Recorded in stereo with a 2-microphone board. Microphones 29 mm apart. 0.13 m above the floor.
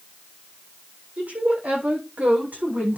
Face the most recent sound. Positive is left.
turn(degrees=-80)